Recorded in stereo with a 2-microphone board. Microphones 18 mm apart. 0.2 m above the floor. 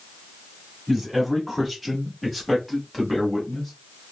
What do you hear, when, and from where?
0.9 s a man speaking: 10° right (ahead or behind), 1.6 m; by 3.7 s 5° left (ahead or behind), 1.7 m